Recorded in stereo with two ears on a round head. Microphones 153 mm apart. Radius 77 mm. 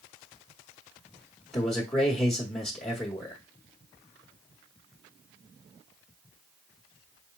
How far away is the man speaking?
About 1.0 m.